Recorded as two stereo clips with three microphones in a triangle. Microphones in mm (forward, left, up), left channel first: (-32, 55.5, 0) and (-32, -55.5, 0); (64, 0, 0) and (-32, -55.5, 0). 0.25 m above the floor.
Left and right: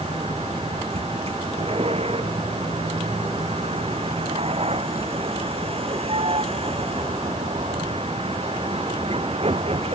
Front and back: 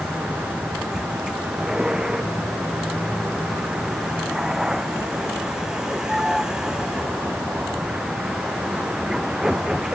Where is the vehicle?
65° right.